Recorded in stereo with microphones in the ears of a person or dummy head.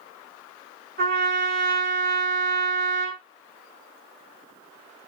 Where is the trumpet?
40° right (ahead or behind), 2.5 m.